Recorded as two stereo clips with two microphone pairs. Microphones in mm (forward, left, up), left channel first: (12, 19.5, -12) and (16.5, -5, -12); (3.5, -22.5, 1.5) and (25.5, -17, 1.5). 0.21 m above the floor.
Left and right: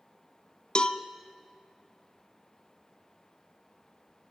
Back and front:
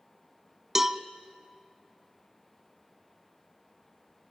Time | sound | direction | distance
0.8 | a cowbell | 75° left | 0.8 m